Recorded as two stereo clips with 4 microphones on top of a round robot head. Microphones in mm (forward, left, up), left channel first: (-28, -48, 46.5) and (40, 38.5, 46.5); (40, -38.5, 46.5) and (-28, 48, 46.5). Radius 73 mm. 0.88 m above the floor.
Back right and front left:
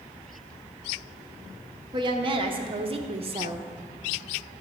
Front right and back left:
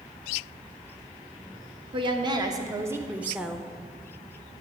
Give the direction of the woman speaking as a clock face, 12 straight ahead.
9 o'clock.